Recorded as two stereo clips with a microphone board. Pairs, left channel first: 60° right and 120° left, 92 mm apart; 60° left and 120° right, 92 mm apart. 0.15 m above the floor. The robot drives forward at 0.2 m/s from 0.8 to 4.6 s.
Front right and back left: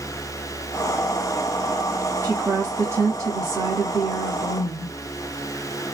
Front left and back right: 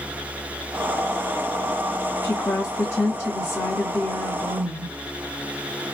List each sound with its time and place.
2.2 s a woman speaking: 80° left, 1.6 m; by 4.9 s 105° left, 1.6 m